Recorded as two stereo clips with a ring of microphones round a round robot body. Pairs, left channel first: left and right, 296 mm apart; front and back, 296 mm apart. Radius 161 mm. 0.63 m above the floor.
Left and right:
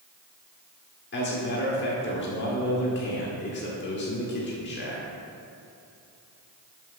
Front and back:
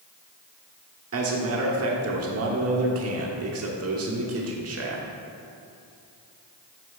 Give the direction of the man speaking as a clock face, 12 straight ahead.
7 o'clock.